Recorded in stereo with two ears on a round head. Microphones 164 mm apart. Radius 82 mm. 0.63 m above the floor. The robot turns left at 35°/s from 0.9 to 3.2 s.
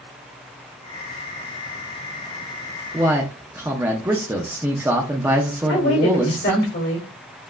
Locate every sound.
2.9 s a man speaking: 15° right (ahead or behind), 0.6 m; by 6.7 s 10° right (ahead or behind), 0.6 m
5.7 s a woman speaking: 65° left (ahead or behind), 2 m